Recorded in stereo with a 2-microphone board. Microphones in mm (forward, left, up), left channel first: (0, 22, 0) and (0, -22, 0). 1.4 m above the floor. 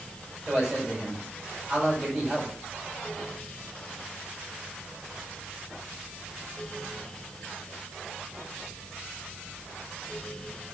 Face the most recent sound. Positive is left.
turn(degrees=-15)  # may be behind; listen again after turning